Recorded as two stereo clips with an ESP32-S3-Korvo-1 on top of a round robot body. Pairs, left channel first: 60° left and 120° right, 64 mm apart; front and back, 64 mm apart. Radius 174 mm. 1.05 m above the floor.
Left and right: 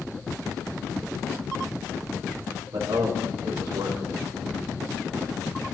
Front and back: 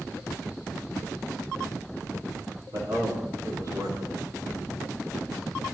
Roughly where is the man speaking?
Behind right.